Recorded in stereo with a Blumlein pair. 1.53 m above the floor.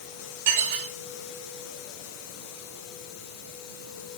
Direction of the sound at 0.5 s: 45° right.